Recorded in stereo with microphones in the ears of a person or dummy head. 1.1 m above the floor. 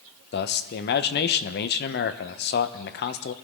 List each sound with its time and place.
0.3 s a man speaking: 45° left (ahead or behind), 0.8 m